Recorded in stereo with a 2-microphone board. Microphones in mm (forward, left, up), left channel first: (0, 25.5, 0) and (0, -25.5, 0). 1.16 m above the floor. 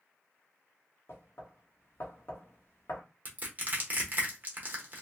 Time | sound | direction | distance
1.1 | knocking | 45° left (ahead or behind) | 0.9 m
3.2 | crushing | 35° right (ahead or behind) | 1.0 m